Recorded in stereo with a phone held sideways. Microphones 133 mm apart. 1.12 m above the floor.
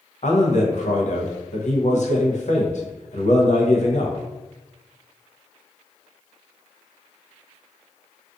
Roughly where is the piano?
No piano in this recording.